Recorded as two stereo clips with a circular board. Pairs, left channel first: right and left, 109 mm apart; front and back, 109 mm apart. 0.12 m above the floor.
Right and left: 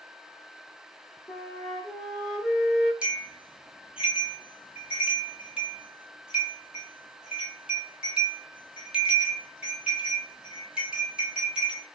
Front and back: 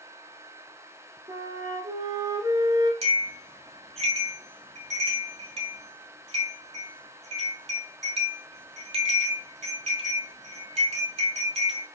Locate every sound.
1.3 s a flute: 165° right, 1.3 m
3.0 s a bell: 170° left, 0.9 m